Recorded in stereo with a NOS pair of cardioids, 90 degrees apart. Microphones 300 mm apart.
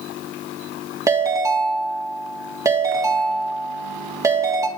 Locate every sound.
1.1 s a ringtone: 10° right, 1.8 m